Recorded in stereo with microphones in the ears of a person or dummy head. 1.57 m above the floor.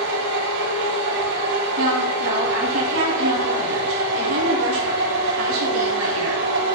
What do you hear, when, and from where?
0.0 s a machine running: 65° right (ahead or behind), 3.5 m
1.8 s a woman speaking: 90° right, 3 m